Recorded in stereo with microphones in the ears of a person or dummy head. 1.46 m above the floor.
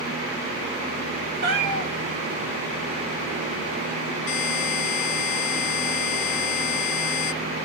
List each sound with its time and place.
1.4 s a cat meowing: 60° right (ahead or behind), 1.5 m
4.3 s a buzzer: 45° left (ahead or behind), 1.7 m